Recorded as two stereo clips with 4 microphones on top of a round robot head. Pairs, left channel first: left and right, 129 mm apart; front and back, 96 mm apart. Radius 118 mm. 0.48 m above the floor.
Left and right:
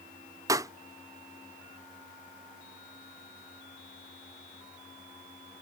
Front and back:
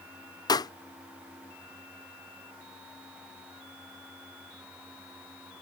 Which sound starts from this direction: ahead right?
A pop, at 0.5 s.